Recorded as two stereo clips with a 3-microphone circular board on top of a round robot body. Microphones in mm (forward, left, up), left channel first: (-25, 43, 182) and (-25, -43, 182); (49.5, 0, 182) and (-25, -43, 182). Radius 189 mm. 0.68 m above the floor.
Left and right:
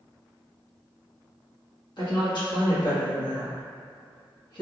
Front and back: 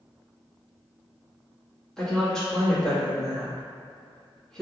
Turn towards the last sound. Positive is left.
turn(degrees=110)